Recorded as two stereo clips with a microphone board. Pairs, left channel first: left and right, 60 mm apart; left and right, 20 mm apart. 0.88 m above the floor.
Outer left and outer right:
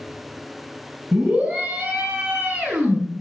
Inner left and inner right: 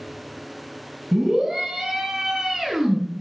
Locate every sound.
1.1 s a scream: 20° right (ahead or behind), 7 m